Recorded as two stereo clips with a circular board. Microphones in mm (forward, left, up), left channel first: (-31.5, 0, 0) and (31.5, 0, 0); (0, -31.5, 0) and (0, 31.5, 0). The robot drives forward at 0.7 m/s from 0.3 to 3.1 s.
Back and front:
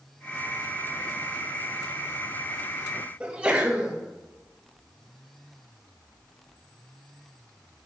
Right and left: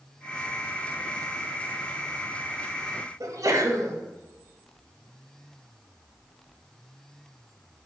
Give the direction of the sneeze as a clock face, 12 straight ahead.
10 o'clock.